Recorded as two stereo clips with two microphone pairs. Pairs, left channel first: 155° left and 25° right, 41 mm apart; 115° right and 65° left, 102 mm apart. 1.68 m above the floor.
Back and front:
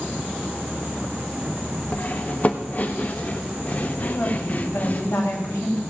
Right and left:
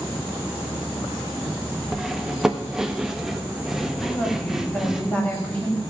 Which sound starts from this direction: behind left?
Cutlery clinking, at 1.9 s.